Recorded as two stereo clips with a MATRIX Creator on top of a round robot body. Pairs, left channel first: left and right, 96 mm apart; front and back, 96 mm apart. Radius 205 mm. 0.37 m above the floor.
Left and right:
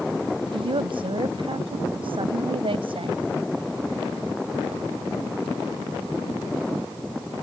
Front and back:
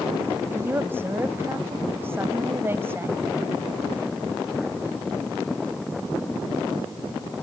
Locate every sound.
0.5 s a woman speaking: 115° right